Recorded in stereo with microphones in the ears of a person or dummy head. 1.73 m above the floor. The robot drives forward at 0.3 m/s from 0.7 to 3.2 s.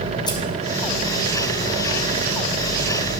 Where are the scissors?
15° left (ahead or behind), 0.6 m.